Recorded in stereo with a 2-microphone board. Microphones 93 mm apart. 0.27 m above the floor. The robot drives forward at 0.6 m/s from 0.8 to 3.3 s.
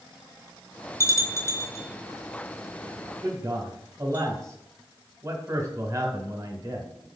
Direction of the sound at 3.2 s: 35° right (ahead or behind).